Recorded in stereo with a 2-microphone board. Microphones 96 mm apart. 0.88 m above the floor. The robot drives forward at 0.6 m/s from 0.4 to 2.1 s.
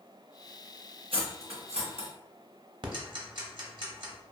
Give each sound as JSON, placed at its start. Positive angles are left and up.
{"t": 1.1, "sound": "cutlery clinking", "side_deg": -60, "distance_m": 0.8}
{"t": 2.8, "sound": "ticking", "side_deg": -45, "distance_m": 0.6}